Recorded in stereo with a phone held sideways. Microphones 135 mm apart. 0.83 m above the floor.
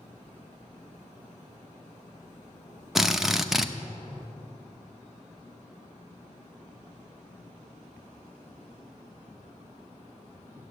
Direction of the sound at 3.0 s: 5° right (ahead or behind).